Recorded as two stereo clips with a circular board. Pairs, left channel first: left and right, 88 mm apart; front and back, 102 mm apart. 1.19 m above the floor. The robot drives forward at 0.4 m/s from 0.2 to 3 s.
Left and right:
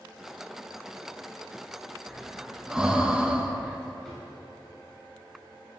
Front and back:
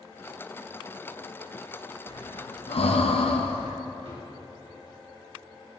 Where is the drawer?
175° left, 2.5 m.